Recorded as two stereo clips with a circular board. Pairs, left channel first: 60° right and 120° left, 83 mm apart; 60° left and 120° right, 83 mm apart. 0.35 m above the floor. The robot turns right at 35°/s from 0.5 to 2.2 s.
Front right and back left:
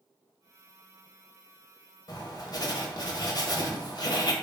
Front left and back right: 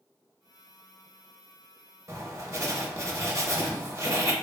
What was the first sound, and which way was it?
Writing, 80° right.